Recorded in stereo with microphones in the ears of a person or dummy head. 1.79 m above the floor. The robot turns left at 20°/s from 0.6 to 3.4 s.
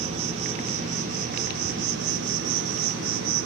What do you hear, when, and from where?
0.0 s an insect: 40° right, 3 m; by 3.5 s 100° right, 3 m